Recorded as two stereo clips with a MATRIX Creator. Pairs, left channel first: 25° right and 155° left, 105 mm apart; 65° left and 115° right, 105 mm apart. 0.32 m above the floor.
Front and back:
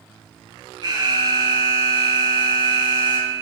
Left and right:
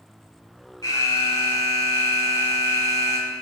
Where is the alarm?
125° left, 3.5 m.